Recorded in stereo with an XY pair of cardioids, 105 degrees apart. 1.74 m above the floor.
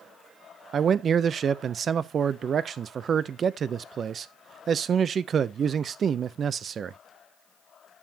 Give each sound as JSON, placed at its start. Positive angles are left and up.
{"t": 0.7, "sound": "a man speaking", "azimuth_deg": -50, "distance_m": 0.7}